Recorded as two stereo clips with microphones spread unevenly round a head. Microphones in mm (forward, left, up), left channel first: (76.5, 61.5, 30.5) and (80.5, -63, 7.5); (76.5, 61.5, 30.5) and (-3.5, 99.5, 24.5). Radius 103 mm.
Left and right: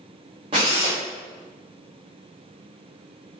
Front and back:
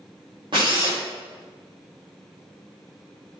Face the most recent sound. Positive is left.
turn(degrees=-150)